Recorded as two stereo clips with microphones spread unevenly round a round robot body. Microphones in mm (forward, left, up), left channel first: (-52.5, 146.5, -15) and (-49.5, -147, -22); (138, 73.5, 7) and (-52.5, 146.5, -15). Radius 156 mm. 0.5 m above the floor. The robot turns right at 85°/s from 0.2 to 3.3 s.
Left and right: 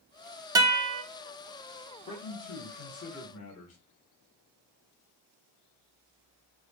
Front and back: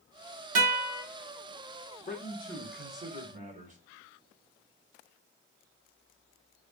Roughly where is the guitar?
Behind.